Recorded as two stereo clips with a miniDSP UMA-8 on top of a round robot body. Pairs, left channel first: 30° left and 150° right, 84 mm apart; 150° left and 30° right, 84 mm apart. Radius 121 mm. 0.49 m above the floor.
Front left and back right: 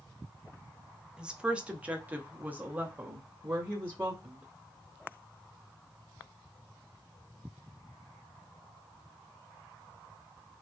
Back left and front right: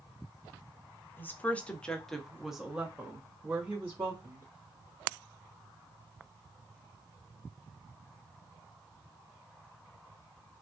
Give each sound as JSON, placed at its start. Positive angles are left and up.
{"t": 1.2, "sound": "a woman speaking", "azimuth_deg": 145, "distance_m": 1.1}